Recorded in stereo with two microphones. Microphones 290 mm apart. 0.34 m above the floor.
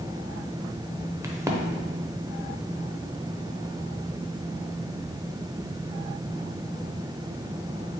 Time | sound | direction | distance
1.2 | a crack | 10° right (ahead or behind) | 0.5 m